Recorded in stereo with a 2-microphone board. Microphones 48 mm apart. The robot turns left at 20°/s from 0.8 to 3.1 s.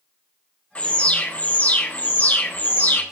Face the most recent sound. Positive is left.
turn(degrees=90)